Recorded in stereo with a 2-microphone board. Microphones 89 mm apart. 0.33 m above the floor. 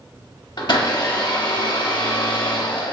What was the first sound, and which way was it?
A blender, 55° left (ahead or behind).